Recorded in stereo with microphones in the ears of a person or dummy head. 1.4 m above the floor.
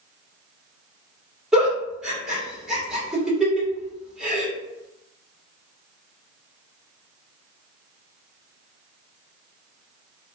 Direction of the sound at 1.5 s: 5° right (ahead or behind).